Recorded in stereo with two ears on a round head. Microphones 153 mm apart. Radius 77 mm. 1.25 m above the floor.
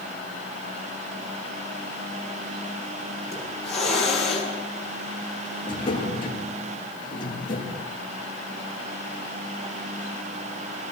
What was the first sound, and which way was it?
A hiss, 5° left (ahead or behind).